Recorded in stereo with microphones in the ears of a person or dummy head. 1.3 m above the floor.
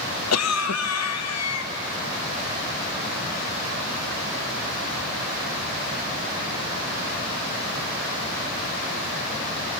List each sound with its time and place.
0.3 s a cough: 80° left, 1.2 m